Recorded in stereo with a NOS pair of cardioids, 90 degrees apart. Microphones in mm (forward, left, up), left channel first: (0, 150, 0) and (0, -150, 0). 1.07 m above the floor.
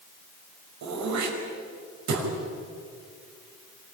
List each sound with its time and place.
0.8 s throat clearing: 65° right, 6 m